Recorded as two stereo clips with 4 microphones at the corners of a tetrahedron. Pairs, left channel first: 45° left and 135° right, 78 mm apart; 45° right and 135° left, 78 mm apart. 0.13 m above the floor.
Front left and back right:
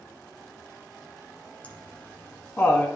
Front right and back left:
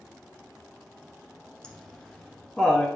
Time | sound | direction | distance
1.6 | laughter | 20° left | 1.2 m